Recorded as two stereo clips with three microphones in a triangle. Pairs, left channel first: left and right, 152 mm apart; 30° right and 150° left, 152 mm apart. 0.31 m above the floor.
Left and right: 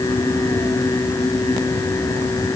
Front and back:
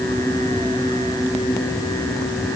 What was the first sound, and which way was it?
Only background noise.